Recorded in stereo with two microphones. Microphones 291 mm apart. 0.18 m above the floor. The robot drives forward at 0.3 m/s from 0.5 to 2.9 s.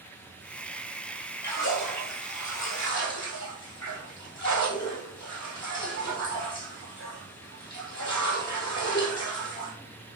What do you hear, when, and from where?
1.4 s a splash: 75° left (ahead or behind), 3.5 m; by 9.7 s 70° left (ahead or behind), 3.5 m